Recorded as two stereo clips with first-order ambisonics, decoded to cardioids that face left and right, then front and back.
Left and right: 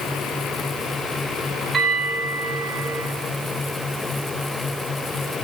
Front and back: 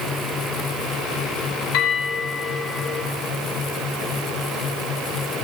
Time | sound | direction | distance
1.7 | a bell | 20° right | 2.5 m